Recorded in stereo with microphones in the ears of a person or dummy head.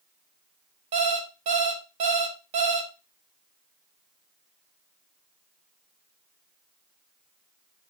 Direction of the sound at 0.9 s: 45° right (ahead or behind).